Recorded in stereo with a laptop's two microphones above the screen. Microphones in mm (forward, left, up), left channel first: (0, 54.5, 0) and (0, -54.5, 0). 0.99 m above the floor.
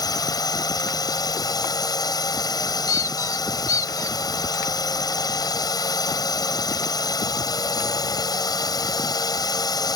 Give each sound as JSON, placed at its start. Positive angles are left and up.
{"t": 0.0, "sound": "a drone", "side_deg": 35}
{"t": 2.9, "sound": "a squeak", "side_deg": 30}